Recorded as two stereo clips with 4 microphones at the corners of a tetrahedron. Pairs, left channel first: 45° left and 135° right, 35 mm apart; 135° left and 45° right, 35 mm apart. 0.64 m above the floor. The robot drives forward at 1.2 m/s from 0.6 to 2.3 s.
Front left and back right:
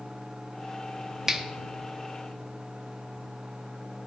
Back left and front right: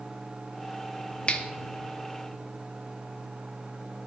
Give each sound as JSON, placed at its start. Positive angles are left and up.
{"t": 1.3, "sound": "a finger snap", "azimuth_deg": 160, "distance_m": 0.7}